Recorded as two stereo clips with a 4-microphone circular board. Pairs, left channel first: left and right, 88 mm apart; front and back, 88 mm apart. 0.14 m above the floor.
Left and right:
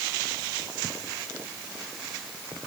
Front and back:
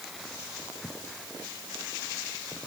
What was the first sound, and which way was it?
Only background noise.